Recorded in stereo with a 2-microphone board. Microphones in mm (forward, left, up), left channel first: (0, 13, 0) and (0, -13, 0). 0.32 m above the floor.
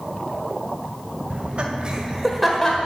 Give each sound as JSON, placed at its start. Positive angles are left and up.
{"t": 1.3, "sound": "laughter", "side_deg": -50, "distance_m": 1.7}